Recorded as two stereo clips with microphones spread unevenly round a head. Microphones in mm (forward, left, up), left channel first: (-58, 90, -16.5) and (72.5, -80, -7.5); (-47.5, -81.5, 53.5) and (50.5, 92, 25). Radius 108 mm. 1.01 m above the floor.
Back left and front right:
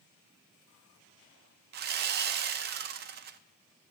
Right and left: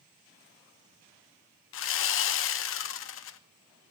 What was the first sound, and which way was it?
Sawing, 100° right.